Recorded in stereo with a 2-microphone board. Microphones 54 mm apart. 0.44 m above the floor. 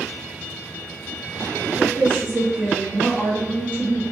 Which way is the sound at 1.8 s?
20° right (ahead or behind).